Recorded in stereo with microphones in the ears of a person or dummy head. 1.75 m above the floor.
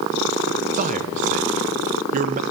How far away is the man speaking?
About 0.7 m.